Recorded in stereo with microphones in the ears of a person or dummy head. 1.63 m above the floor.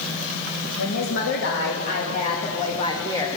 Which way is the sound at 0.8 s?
75° left (ahead or behind).